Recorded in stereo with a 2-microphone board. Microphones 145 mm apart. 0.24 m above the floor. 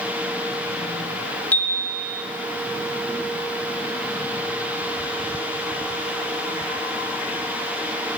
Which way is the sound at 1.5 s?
10° left (ahead or behind).